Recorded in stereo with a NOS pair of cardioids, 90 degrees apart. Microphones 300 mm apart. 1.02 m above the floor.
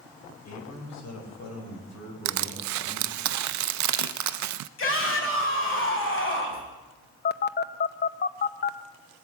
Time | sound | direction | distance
0.5 | a man speaking | 55° left | 4.5 m
2.2 | crushing | 65° right | 0.5 m
4.8 | a shout | 40° left | 5.5 m
7.2 | a phone buzzing | 35° left | 0.7 m